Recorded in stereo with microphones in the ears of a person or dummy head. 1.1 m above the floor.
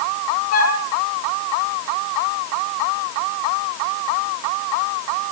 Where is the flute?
80° left, 4.5 m.